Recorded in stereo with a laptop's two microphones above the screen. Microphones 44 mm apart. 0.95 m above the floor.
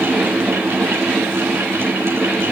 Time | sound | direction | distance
0.0 | a fan | 70° right (ahead or behind) | 2.5 m